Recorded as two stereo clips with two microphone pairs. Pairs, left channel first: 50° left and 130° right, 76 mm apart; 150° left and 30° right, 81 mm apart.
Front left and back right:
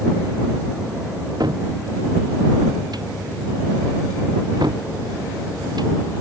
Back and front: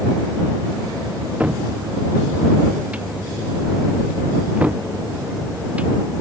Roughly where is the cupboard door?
Right.